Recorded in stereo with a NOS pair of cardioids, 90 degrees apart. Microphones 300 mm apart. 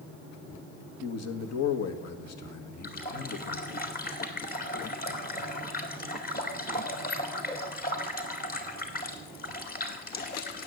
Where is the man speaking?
60° left, 1.7 m.